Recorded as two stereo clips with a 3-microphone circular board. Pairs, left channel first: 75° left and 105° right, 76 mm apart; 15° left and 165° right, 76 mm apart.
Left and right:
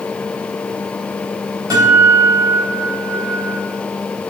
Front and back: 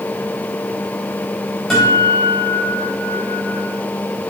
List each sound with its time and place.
1.7 s a guitar: 75° right, 3.5 m